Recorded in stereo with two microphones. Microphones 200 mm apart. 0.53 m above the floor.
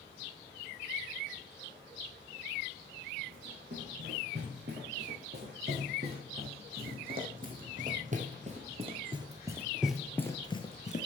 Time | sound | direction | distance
3.3 | running footsteps | 60° right (ahead or behind) | 3.5 m